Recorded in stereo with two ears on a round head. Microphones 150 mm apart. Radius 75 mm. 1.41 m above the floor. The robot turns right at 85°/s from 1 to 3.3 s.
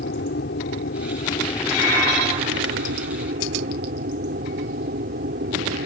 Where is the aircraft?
105° left; by 5.9 s 55° right.